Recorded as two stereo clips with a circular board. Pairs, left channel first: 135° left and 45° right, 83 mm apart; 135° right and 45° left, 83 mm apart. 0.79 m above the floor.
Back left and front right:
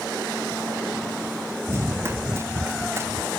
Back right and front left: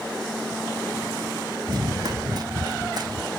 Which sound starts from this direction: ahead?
Running footsteps, at 1.7 s.